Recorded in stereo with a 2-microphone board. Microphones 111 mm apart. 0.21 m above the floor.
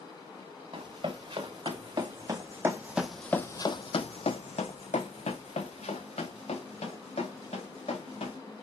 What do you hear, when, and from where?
0.7 s running footsteps: 50° right (ahead or behind), 2 m; by 8.4 s 70° left (ahead or behind), 3.5 m